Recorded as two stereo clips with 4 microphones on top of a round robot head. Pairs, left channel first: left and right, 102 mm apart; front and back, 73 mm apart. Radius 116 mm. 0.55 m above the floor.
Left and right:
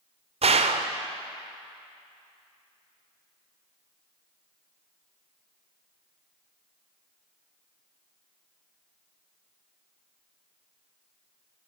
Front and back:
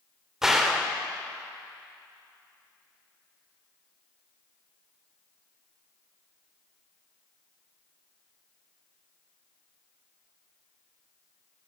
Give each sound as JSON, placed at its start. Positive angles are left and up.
{"t": 0.4, "sound": "a gunshot", "azimuth_deg": -100, "distance_m": 1.0}